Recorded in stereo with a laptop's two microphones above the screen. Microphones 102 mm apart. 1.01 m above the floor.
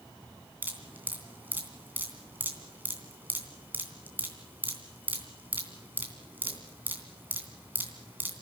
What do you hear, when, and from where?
0.6 s dripping: 20° right (ahead or behind), 3 m